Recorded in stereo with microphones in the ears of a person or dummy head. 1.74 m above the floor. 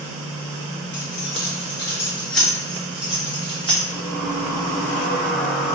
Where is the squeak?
5° left (ahead or behind), 0.7 m.